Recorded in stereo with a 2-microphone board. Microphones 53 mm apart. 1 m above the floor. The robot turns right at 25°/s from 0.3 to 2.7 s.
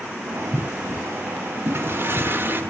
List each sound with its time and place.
1.6 s a toilet flushing: 50° right (ahead or behind), 1.2 m; by 2.6 s 40° right (ahead or behind), 1.2 m